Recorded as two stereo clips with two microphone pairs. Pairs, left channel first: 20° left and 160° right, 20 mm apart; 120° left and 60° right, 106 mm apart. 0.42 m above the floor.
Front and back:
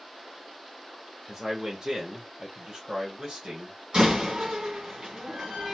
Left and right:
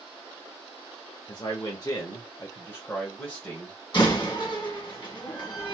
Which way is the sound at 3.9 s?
160° left.